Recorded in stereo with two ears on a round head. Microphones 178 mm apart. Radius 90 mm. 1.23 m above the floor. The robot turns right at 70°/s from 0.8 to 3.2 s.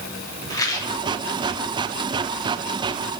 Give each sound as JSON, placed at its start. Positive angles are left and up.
{"t": 0.5, "sound": "a rattle", "side_deg": 20, "distance_m": 2.0}